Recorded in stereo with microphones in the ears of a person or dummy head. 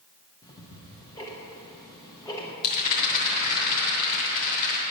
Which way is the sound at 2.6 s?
55° left (ahead or behind).